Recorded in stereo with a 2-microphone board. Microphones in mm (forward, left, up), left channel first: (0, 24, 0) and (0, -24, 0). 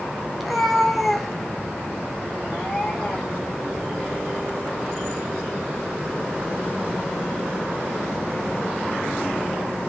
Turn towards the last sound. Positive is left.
turn(degrees=0)  # may be behind; listen again after turning